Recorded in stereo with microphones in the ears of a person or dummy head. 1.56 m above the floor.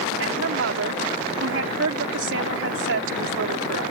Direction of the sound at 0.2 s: 80° right.